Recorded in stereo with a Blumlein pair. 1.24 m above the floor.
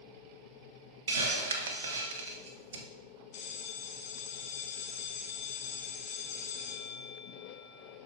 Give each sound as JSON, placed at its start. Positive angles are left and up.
{"t": 1.1, "sound": "a hiss", "azimuth_deg": -60, "distance_m": 1.2}
{"t": 3.3, "sound": "a bell", "azimuth_deg": 40, "distance_m": 1.5}